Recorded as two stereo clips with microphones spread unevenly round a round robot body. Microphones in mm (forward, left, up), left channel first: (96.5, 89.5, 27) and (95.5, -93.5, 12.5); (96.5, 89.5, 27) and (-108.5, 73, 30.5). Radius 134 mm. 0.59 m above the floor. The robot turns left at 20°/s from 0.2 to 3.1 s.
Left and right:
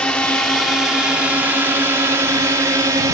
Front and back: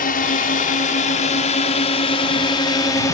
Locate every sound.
0.0 s a drone: 5° left; by 3.1 s 50° right